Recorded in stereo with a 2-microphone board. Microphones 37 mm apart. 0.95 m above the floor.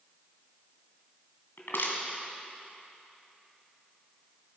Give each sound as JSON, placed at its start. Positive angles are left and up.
{"t": 1.6, "sound": "crushing", "side_deg": 75, "distance_m": 2.0}